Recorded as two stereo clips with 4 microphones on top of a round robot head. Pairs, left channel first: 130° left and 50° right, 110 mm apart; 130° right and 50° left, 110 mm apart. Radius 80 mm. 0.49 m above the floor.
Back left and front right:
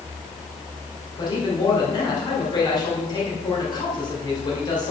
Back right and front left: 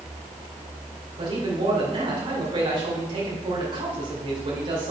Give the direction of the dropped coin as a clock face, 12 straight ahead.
I don't hear a dropped coin.